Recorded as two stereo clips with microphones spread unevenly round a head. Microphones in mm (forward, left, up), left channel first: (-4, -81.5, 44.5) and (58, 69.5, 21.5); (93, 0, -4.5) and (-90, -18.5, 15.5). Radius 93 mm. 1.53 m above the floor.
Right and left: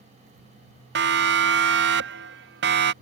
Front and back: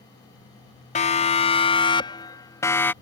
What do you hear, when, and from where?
0.9 s a siren: 60° left; by 2.9 s 85° left